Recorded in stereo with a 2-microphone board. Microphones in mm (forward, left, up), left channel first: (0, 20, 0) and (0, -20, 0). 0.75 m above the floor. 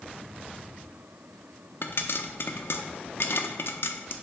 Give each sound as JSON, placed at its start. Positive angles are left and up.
{"t": 1.8, "sound": "a pop", "side_deg": 65, "distance_m": 0.7}